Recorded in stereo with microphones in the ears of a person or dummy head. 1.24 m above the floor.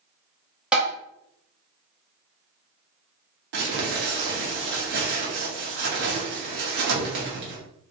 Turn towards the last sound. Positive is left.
turn(degrees=-65)  # may be behind; listen again after turning